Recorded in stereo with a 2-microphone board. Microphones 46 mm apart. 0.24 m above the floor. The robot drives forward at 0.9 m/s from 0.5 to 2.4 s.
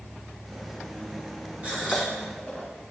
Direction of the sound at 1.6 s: 35° right (ahead or behind).